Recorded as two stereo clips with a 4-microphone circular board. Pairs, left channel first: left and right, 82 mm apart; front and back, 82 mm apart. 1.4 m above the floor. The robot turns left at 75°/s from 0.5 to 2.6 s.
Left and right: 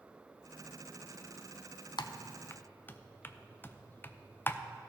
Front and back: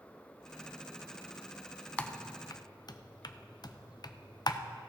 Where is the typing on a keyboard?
75° left, 0.5 m; by 4.6 s 25° left, 0.5 m.